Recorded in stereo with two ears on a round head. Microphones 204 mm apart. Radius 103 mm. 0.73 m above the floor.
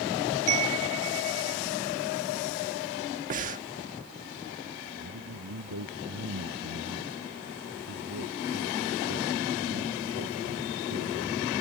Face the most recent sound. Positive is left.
turn(degrees=-75)  # may be behind; listen again after turning